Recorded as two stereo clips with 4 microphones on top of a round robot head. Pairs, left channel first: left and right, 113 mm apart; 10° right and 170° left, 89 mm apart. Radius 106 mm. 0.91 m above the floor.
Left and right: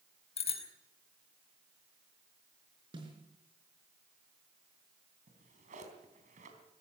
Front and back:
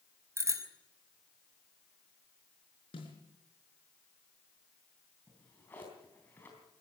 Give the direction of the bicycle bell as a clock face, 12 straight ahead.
8 o'clock.